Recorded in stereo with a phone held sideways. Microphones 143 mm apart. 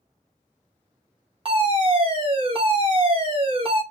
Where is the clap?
I don't hear a clap.